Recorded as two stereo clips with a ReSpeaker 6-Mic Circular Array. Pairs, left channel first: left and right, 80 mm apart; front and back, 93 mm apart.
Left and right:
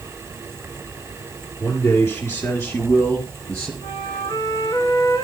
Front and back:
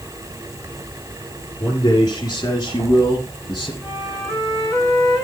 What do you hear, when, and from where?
1.6 s a man speaking: 45° left, 3.5 m; by 3.7 s 35° left, 2.5 m
3.8 s a flute: 85° left, 9 m